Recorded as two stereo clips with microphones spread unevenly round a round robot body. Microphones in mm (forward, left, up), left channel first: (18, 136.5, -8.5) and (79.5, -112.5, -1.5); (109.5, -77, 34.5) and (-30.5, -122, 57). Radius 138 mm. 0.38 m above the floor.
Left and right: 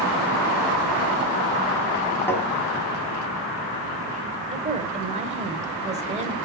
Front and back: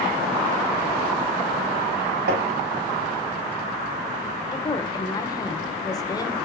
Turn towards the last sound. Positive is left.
turn(degrees=-20)